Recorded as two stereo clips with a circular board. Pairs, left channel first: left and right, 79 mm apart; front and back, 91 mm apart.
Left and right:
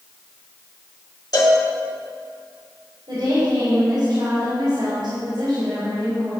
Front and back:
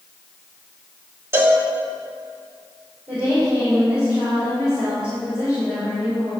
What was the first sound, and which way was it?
A cowbell, 115° left.